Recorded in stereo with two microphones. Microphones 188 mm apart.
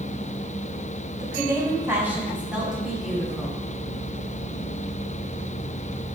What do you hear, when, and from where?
1.2 s a woman speaking: 20° right (ahead or behind), 2 m; by 3.6 s 5° left (ahead or behind), 3 m